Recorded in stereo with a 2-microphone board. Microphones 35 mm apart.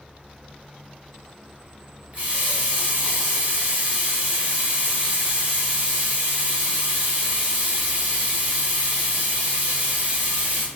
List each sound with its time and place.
2.1 s a running tap: 45° right (ahead or behind), 1.0 m